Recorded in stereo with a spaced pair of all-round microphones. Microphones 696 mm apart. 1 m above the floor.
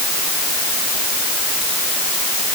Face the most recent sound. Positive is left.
No sound to turn to.